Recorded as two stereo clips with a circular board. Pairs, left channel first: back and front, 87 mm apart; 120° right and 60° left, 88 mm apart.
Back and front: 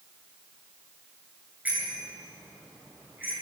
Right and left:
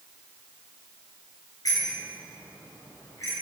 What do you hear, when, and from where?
1.6 s a bicycle bell: 75° right, 10 m; by 3.3 s 70° right, 10.5 m